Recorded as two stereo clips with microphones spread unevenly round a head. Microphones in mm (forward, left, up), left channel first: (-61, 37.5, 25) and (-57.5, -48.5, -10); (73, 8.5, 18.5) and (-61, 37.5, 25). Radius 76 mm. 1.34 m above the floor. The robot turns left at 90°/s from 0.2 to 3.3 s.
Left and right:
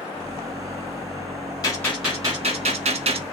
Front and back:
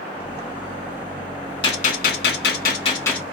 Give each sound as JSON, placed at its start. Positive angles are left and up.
{"t": 1.6, "sound": "a gunshot", "azimuth_deg": 45, "distance_m": 1.5}